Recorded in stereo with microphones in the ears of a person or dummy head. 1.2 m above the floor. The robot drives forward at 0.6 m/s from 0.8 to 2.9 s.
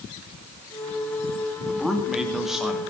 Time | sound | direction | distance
1.7 | a man speaking | centre (ahead or behind) | 2.5 m